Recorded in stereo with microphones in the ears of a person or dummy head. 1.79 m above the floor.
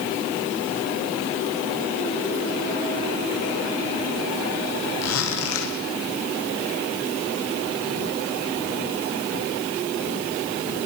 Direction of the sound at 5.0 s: 80° left.